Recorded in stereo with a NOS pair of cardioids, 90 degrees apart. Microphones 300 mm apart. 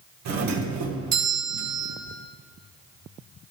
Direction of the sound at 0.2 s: 65° right.